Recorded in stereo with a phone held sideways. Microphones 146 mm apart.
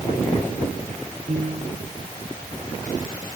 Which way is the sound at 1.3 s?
50° right (ahead or behind).